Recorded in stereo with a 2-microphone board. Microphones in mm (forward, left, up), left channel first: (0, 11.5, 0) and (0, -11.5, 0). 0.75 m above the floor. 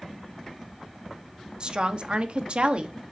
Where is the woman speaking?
45° right (ahead or behind), 1.1 m; by 3.0 s 55° right (ahead or behind), 1.1 m.